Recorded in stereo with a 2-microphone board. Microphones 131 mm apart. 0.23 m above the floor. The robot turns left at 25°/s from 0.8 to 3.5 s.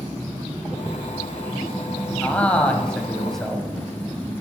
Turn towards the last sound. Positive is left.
turn(degrees=0)  # may be behind; listen again after turning